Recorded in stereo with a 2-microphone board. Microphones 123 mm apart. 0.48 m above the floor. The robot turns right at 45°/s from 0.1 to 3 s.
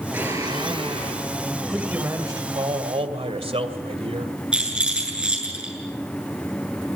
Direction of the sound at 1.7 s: 175° right.